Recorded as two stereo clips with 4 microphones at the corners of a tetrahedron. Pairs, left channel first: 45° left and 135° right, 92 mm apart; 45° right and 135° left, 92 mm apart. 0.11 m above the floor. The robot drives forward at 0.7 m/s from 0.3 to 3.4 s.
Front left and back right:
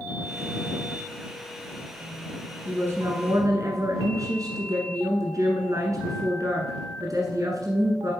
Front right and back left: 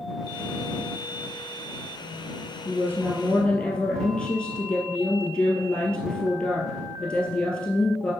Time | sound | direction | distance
2.6 | a woman speaking | 85° right | 1.3 m